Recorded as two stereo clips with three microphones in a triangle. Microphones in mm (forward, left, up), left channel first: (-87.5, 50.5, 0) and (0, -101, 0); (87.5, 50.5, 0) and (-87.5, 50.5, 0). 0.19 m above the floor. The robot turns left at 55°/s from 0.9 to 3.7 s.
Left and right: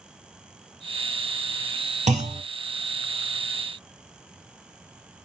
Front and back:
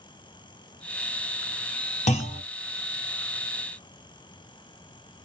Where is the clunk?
30° right, 0.8 m; by 2.4 s 50° right, 0.8 m.